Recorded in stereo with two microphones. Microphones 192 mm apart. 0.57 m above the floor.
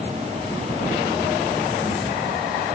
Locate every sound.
Only background noise.